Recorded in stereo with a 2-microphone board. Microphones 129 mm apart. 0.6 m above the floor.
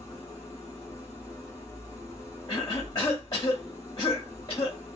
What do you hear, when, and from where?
0.0 s an engine running: 25° left (ahead or behind), 1.4 m
2.5 s a cough: 40° left (ahead or behind), 0.7 m